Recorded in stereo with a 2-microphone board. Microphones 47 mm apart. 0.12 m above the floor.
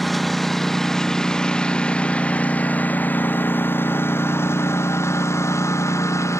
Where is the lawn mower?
5° left (ahead or behind); by 6.4 s 80° left.